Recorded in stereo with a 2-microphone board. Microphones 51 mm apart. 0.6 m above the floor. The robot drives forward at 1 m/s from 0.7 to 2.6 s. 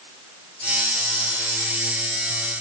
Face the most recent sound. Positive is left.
No sound to turn to.